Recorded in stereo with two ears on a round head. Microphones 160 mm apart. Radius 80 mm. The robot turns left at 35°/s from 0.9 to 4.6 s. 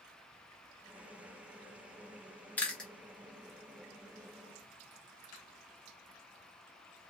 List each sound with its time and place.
2.6 s chewing: 10° left (ahead or behind), 0.7 m; by 2.9 s centre (ahead or behind), 0.7 m